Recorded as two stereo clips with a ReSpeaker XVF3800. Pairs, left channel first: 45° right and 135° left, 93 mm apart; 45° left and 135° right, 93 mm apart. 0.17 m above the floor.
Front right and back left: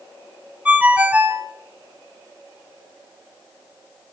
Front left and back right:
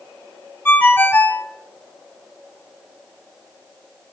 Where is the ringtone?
85° left, 0.6 m.